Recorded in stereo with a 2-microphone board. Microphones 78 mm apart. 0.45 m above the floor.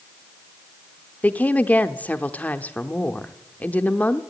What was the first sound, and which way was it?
A woman speaking, 20° left (ahead or behind).